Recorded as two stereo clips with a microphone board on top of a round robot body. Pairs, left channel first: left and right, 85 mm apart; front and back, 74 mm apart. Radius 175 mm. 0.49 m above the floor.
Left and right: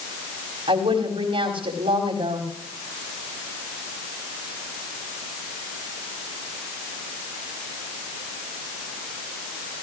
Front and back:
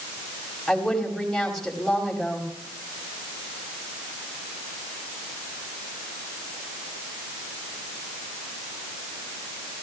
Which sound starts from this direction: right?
A woman speaking, at 0.7 s.